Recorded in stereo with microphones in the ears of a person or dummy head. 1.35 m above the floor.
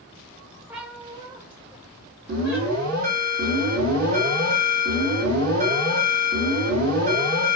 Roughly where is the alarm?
Right.